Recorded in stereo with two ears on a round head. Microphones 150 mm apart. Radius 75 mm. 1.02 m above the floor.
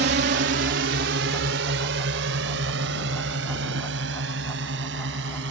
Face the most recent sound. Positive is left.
turn(degrees=-70)  # may be behind; listen again after turning